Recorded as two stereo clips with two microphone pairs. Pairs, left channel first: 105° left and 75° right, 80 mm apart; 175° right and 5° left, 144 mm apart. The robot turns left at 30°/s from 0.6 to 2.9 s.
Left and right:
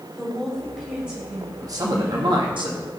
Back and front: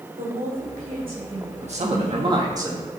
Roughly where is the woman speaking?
Ahead.